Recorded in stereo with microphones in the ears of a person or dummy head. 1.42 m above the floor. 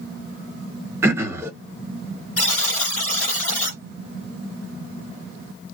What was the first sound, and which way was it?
Throat clearing, 10° right (ahead or behind).